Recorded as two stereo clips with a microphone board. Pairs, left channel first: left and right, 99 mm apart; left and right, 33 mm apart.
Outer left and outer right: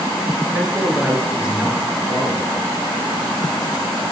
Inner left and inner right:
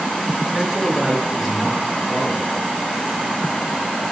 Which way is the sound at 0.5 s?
10° right (ahead or behind).